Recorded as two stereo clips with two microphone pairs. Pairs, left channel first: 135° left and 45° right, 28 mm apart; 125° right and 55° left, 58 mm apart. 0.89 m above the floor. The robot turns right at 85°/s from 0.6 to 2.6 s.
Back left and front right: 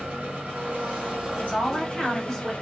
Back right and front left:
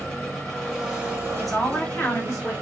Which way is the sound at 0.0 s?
45° right.